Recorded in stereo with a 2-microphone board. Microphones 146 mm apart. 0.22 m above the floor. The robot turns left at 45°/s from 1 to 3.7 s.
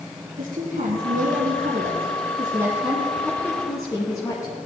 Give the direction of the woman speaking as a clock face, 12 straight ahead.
3 o'clock.